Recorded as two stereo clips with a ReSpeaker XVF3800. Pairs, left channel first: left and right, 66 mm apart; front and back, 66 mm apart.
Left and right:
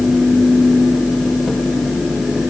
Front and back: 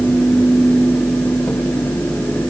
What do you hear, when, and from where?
Only background noise.